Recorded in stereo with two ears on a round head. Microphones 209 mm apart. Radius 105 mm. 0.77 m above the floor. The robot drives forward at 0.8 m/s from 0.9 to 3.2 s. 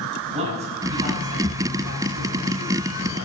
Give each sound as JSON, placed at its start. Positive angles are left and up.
{"t": 0.3, "sound": "a man speaking", "side_deg": -30, "distance_m": 6.5}